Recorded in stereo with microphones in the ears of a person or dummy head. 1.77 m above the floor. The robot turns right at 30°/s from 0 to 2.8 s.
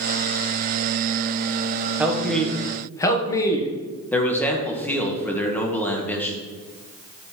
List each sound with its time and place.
2.0 s a man speaking: 10° right (ahead or behind), 1.7 m; by 3.7 s 15° left (ahead or behind), 1.7 m
4.1 s a man speaking: 10° left (ahead or behind), 1.8 m